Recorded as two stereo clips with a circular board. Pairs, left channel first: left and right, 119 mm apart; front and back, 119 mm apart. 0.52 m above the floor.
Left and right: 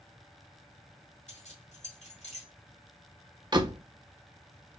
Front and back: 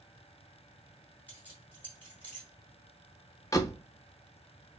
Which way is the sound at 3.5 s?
50° right.